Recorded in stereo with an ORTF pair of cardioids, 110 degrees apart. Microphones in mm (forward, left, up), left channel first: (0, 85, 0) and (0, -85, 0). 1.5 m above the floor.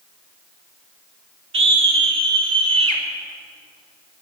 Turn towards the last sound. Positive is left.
turn(degrees=-35)